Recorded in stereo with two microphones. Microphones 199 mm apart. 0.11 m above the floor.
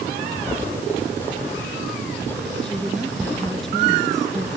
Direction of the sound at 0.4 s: 10° left (ahead or behind).